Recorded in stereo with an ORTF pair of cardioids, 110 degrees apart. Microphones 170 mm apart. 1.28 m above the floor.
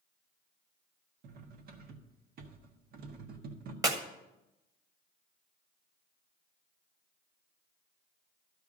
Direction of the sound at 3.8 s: 20° right.